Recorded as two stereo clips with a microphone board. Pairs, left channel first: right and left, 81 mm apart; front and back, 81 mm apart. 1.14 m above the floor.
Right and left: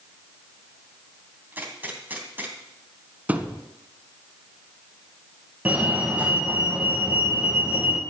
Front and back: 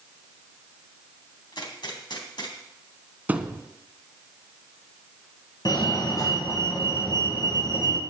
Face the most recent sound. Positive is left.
turn(degrees=20)